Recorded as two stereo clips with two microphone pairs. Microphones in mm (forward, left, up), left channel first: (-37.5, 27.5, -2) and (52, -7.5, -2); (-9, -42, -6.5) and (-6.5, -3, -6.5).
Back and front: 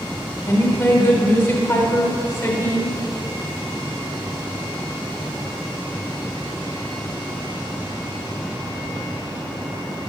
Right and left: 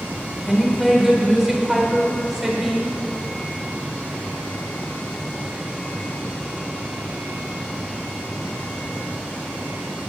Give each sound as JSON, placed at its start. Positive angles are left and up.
{"t": 0.5, "sound": "a woman speaking", "azimuth_deg": 165, "distance_m": 1.0}